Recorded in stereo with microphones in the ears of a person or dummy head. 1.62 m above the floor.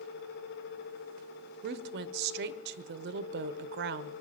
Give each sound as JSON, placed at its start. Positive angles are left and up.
{"t": 1.6, "sound": "a woman speaking", "side_deg": -60, "distance_m": 0.8}